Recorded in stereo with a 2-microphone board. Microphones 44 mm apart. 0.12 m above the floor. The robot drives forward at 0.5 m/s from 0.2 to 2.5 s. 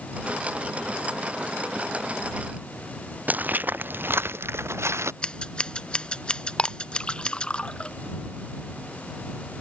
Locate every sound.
3.3 s footsteps: 35° right (ahead or behind); by 5.1 s 80° right
5.2 s scissors: 25° left (ahead or behind)
6.6 s a clink: 20° left (ahead or behind)